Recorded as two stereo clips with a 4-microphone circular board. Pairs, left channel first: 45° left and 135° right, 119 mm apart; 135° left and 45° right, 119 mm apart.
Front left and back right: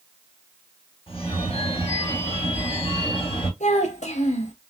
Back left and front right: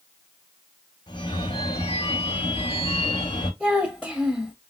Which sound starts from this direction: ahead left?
A child speaking, at 3.6 s.